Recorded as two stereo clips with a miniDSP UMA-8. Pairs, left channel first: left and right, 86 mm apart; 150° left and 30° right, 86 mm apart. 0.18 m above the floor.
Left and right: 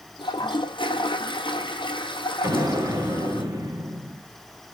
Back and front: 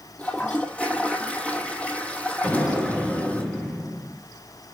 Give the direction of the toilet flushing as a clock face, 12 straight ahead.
9 o'clock.